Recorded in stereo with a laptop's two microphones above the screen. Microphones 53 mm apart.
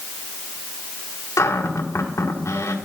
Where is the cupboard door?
85° left, 1.4 m.